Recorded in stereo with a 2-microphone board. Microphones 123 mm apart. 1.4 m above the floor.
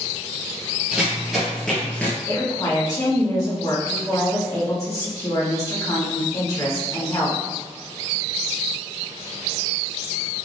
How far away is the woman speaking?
About 1.5 m.